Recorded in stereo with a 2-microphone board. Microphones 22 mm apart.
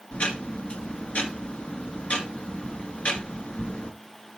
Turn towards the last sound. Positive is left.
turn(degrees=75)  # may be behind; listen again after turning